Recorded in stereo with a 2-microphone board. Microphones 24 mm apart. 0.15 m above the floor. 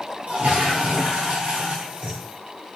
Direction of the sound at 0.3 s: 70° right (ahead or behind).